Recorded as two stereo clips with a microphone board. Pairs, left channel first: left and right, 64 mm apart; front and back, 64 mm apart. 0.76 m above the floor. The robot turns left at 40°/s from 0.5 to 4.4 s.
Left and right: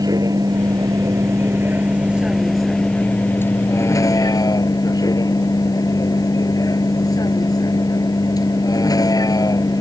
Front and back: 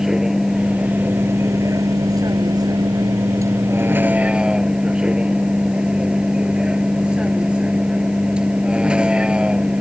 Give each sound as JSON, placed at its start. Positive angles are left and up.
{"t": 0.0, "sound": "a vehicle", "azimuth_deg": -100}